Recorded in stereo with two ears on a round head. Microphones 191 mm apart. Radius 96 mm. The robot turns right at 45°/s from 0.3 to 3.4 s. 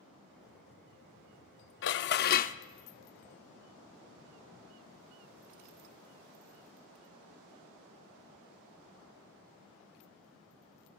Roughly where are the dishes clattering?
Left.